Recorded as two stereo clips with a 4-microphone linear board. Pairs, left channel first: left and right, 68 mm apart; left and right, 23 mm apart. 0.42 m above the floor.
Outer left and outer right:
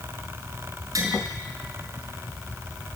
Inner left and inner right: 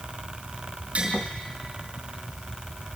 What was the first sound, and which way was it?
Tapping, 55° right (ahead or behind).